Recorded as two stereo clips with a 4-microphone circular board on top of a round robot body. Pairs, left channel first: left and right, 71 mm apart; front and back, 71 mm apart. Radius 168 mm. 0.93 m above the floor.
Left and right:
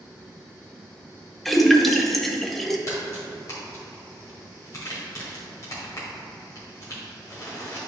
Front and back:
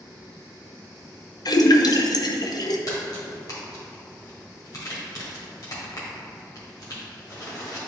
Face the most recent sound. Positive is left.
turn(degrees=40)